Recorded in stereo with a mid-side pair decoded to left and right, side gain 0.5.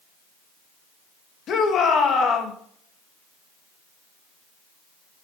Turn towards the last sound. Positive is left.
turn(degrees=60)